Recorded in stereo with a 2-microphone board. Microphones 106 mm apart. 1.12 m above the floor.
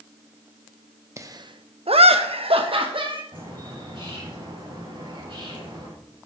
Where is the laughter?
30° right (ahead or behind), 1.1 m; by 3.2 s 50° right (ahead or behind), 2.5 m.